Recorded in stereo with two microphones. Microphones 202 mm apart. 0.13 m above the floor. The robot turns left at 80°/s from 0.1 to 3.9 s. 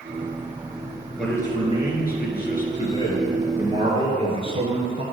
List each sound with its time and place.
1.2 s a man speaking: straight behind, 2 m; by 5.0 s 40° right, 2 m